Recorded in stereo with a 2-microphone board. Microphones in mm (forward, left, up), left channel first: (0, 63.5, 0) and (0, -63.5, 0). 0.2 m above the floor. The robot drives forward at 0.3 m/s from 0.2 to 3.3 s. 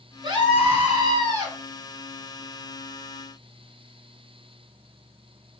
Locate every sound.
0.2 s a scream: 40° right (ahead or behind), 1.3 m; by 1.6 s 35° right (ahead or behind), 1.5 m